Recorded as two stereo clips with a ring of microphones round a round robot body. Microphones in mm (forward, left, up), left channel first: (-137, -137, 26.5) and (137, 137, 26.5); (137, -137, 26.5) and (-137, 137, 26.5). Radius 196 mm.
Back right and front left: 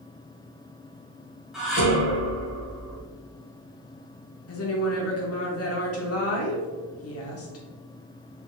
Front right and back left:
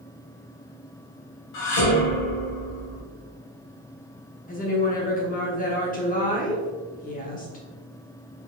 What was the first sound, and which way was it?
Dishes clattering, 45° right.